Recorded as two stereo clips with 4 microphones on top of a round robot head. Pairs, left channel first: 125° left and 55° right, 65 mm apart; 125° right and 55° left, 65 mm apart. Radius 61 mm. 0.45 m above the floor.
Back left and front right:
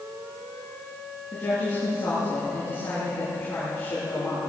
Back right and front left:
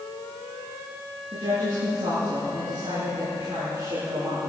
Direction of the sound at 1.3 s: 65° left.